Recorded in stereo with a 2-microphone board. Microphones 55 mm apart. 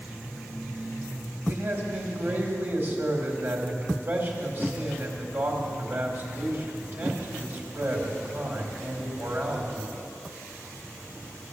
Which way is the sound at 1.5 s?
45° right (ahead or behind).